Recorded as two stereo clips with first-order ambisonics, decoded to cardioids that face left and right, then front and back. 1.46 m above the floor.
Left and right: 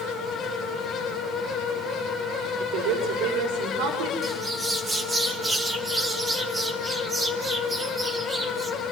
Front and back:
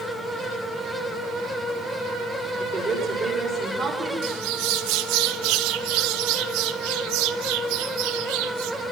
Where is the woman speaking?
105° right, 5.5 m.